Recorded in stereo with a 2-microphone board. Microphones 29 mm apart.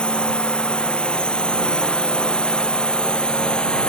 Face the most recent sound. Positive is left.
turn(degrees=35)  # may be behind; listen again after turning